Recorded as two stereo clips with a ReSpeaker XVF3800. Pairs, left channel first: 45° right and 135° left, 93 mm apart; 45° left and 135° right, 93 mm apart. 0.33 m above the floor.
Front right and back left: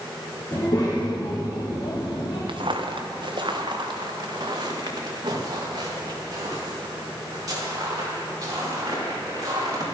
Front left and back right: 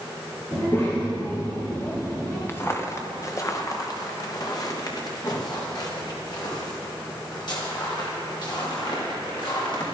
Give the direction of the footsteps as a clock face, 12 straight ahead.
8 o'clock.